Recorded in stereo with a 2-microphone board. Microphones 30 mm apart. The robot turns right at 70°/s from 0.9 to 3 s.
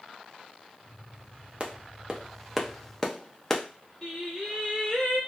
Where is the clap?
35° right (ahead or behind), 0.5 m; by 3.6 s 20° left (ahead or behind), 0.5 m.